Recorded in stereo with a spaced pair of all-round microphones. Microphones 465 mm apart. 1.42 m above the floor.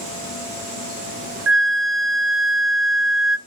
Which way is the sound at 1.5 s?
65° right (ahead or behind).